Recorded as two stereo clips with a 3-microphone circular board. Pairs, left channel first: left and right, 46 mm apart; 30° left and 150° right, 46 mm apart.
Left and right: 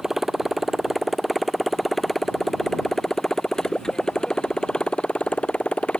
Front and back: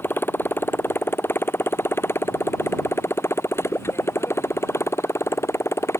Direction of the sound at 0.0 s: 5° right.